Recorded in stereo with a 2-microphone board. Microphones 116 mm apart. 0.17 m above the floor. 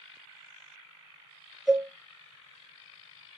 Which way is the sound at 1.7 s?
Centre (ahead or behind).